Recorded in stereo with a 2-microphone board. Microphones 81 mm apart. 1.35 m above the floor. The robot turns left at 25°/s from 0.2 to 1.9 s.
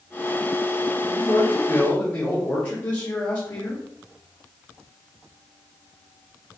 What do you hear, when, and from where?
1.0 s a man speaking: 10° left (ahead or behind), 1.0 m; by 3.8 s 30° left (ahead or behind), 1.0 m